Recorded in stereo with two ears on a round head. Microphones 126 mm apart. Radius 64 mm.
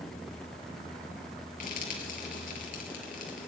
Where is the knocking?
No knocking in this recording.